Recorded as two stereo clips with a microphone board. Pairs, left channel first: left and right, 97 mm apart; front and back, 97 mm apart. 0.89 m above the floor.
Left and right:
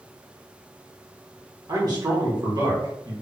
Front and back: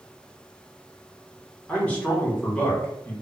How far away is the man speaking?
About 1.2 m.